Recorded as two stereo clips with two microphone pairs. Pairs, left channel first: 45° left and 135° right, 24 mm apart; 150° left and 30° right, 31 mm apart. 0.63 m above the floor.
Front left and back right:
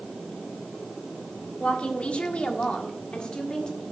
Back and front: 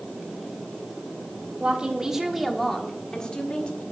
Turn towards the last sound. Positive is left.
turn(degrees=100)